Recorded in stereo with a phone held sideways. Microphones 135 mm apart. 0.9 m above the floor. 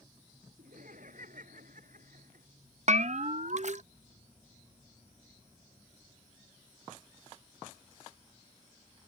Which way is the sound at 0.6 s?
70° right (ahead or behind).